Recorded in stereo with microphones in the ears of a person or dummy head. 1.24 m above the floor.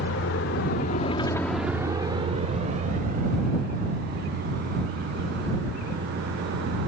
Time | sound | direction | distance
0.0 | a vehicle | 85° left | ?